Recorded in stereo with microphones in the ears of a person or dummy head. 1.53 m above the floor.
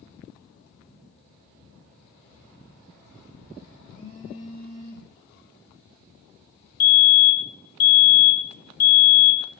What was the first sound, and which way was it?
A phone buzzing, 30° left (ahead or behind).